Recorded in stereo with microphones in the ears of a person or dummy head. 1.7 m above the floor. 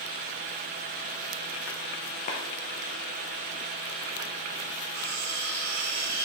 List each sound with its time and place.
2.3 s a clap: 35° left (ahead or behind), 1.0 m
4.9 s cutlery clinking: 50° right (ahead or behind), 1.4 m